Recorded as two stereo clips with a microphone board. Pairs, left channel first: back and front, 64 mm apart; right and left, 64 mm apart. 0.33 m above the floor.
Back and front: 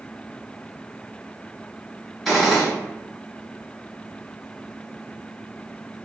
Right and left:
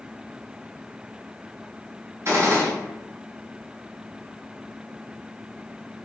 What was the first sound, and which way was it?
A gunshot, 85° left.